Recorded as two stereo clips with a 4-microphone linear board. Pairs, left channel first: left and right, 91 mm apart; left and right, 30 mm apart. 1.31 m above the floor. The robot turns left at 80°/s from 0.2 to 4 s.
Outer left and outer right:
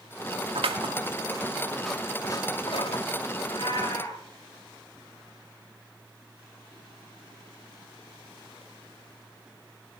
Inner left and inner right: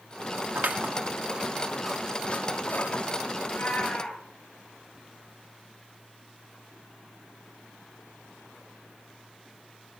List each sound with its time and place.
0.6 s scissors: 80° right, 2.5 m; by 3.0 s 80° left, 2.5 m
3.4 s a cat meowing: 90° left, 7.5 m; by 4.2 s 45° left, 7.5 m